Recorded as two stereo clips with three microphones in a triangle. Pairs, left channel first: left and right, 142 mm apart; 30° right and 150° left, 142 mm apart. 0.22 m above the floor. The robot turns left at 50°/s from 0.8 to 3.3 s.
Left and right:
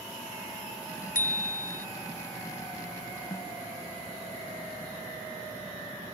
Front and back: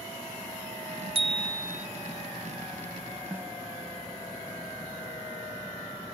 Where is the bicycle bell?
105° left; by 1.9 s 70° left.